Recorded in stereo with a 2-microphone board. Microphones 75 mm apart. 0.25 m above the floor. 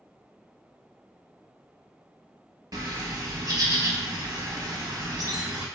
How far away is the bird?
About 0.5 m.